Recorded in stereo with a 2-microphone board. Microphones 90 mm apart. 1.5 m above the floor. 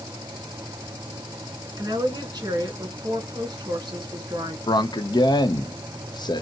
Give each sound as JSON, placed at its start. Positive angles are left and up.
{"t": 1.8, "sound": "a woman speaking", "side_deg": -50, "distance_m": 1.8}
{"t": 4.7, "sound": "a man speaking", "side_deg": 55, "distance_m": 0.7}